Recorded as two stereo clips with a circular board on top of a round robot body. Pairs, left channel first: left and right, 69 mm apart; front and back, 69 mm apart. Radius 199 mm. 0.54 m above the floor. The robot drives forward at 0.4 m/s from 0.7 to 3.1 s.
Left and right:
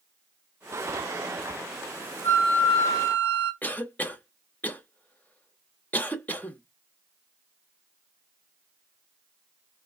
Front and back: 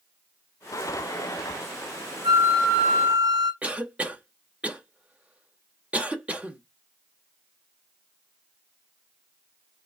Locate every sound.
2.2 s a flute: 145° left, 1.5 m; by 3.5 s 150° left, 1.8 m
3.6 s a cough: 130° left, 1.0 m